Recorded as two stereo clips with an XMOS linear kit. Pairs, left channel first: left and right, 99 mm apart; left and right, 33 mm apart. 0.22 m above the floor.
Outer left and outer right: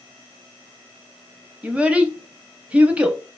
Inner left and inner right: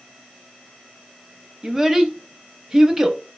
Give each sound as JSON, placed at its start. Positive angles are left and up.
{"t": 1.6, "sound": "a child speaking", "side_deg": -15, "distance_m": 0.6}